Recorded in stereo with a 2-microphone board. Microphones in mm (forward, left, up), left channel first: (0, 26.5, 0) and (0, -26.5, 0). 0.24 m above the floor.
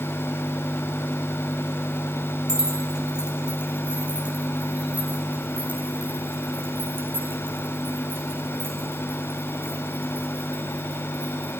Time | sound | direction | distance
2.5 | keys jangling | 10° right (ahead or behind) | 7.5 m